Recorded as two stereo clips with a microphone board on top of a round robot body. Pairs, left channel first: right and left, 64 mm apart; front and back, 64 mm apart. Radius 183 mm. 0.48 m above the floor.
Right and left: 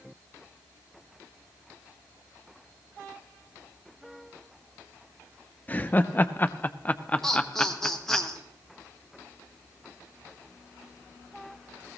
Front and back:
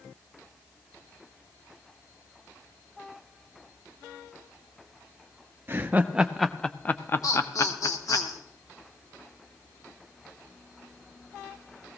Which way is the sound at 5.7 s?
140° right.